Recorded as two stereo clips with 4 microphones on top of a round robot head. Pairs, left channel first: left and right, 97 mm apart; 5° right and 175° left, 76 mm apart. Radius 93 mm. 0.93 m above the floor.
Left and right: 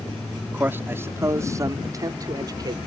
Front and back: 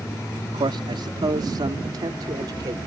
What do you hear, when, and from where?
0.5 s a man speaking: 160° right; by 2.8 s 140° right